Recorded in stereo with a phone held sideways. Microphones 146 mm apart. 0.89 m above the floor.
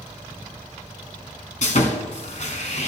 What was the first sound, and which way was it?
Sawing, 55° left (ahead or behind).